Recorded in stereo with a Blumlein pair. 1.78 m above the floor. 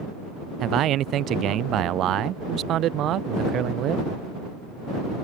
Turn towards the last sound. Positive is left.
turn(degrees=-30)